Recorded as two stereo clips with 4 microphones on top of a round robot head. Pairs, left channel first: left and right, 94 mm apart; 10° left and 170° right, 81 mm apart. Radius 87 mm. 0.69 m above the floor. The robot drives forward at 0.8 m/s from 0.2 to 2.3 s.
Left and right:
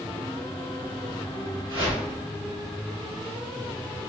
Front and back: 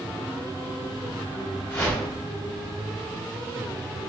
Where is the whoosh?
65° right, 2 m; by 2.0 s 70° right, 2 m.